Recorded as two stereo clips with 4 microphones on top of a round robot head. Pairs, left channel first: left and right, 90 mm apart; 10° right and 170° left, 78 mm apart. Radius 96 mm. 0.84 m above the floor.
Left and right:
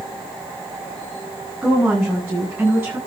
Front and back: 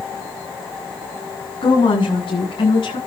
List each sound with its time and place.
1.6 s a woman speaking: 5° right, 8.5 m; by 3.0 s 15° right, 9.5 m